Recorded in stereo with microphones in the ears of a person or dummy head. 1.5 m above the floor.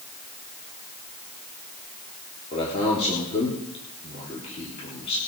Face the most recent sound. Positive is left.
turn(degrees=30)  # may be behind; listen again after turning